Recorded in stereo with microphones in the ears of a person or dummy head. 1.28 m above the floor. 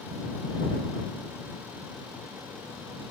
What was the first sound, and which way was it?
Only background noise.